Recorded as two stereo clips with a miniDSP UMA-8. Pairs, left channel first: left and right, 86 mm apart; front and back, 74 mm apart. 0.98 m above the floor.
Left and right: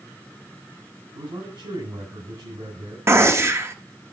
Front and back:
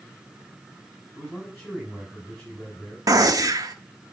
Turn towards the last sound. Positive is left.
turn(degrees=-145)